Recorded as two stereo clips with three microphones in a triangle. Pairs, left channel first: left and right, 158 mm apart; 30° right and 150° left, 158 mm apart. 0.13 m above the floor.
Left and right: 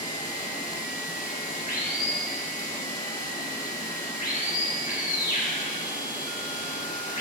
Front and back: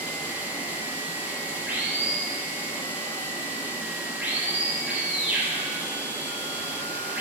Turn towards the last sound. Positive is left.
turn(degrees=70)